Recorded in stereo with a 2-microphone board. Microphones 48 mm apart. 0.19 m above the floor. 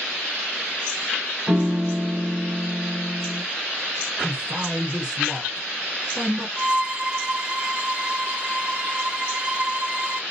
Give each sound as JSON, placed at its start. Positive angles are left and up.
{"t": 1.5, "sound": "a piano", "side_deg": -45, "distance_m": 1.4}
{"t": 4.2, "sound": "a man speaking", "side_deg": -20, "distance_m": 2.0}
{"t": 6.6, "sound": "a violin", "side_deg": -20, "distance_m": 0.7}